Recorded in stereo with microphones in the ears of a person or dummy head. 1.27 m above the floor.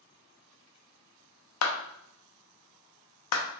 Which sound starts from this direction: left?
A clap, at 1.6 s.